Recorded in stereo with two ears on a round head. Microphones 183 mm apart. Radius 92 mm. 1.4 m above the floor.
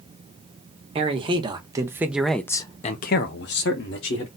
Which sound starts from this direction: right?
A man speaking, at 0.9 s.